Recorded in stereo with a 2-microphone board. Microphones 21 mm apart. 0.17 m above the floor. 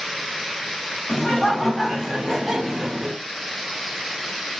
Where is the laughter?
40° left (ahead or behind), 1.8 m; by 3.2 s 20° right (ahead or behind), 1.5 m.